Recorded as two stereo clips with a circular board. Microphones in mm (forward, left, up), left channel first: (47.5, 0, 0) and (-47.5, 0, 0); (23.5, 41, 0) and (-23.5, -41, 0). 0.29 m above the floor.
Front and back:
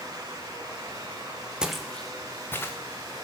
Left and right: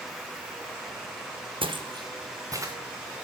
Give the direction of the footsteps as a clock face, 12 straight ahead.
3 o'clock.